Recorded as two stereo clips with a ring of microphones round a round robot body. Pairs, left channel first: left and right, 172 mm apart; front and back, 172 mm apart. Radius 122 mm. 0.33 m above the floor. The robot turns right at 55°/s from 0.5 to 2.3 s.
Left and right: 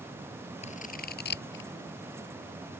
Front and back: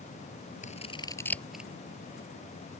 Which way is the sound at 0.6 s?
40° left.